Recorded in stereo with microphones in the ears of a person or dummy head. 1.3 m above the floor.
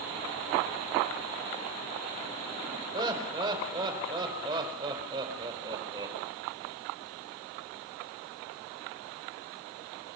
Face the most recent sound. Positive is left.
turn(degrees=-25)  # may be behind; listen again after turning